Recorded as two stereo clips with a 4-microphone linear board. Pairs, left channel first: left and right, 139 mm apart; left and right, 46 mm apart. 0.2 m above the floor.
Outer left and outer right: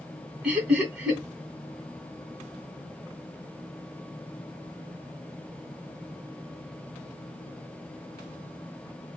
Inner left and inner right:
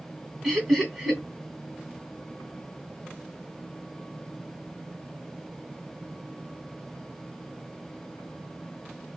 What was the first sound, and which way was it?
Laughter, 5° right (ahead or behind).